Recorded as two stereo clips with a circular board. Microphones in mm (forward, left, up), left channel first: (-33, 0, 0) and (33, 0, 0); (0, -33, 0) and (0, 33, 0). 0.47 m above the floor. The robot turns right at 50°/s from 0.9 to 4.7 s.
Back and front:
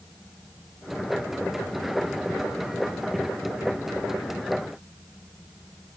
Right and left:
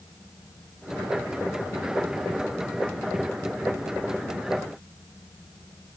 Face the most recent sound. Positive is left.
No sound to turn to.